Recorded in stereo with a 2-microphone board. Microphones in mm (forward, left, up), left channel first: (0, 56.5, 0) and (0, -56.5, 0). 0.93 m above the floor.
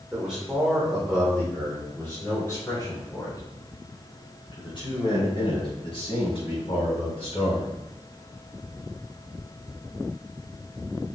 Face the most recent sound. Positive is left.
turn(degrees=65)  # may be behind; listen again after turning